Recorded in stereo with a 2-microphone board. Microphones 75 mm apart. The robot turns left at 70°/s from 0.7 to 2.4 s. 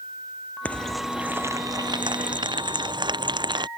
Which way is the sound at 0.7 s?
20° left.